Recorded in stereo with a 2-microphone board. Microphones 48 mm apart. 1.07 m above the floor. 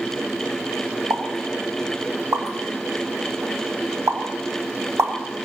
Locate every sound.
1.1 s a pop: 70° right (ahead or behind), 1.6 m